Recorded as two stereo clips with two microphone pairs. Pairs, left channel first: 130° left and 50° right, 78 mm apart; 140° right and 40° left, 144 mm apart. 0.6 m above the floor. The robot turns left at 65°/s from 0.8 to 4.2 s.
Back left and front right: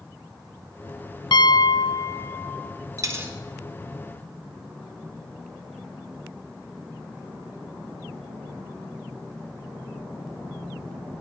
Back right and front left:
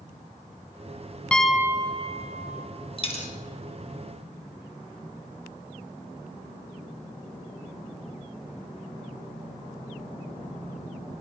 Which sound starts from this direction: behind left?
A piano, at 1.3 s.